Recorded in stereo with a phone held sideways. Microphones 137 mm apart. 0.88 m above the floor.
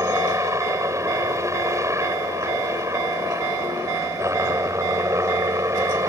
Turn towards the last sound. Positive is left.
turn(degrees=-20)  # may be behind; listen again after turning